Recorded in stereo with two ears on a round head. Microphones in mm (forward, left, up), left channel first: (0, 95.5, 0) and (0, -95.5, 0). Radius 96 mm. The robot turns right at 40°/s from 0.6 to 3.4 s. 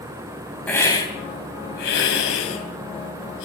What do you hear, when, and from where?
0.7 s a hiss: 10° left, 4 m; by 3.5 s 115° left, 4 m